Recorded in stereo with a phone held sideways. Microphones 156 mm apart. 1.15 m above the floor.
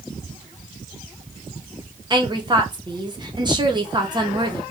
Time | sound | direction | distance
2.1 | a woman speaking | 30° right (ahead or behind) | 0.9 m